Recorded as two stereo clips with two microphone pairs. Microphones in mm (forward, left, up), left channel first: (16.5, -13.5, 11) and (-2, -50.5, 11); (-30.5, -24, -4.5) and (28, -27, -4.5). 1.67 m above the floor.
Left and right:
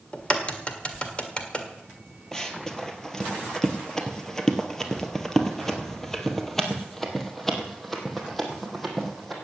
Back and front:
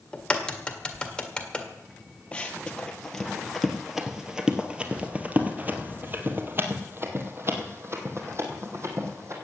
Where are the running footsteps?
130° left, 1.9 m; by 9.3 s 25° right, 3 m.